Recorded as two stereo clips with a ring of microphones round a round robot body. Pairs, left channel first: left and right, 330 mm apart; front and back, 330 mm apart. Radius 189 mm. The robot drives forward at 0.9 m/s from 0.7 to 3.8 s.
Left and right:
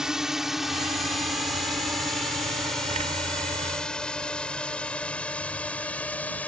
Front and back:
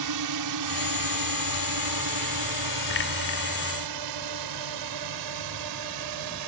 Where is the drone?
Straight behind; by 6.5 s 175° left.